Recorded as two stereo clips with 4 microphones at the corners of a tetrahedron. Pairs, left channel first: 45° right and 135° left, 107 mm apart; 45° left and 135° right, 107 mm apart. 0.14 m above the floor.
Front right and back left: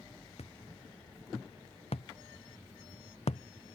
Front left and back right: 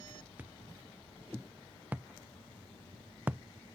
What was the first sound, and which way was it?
A thud, 60° right.